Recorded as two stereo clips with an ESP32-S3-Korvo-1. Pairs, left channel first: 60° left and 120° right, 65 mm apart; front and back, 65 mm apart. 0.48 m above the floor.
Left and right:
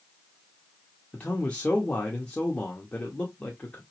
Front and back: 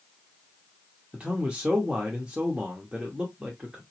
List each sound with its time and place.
1.1 s a man speaking: 120° left, 0.9 m